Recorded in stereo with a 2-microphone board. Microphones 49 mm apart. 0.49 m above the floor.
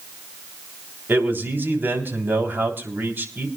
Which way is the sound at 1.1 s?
45° right (ahead or behind).